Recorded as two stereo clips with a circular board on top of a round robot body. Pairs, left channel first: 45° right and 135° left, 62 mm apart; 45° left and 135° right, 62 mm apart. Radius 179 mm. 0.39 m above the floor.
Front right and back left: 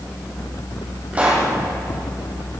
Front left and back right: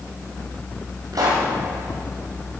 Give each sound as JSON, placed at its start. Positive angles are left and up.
{"t": 1.1, "sound": "a pop", "azimuth_deg": -155, "distance_m": 4.5}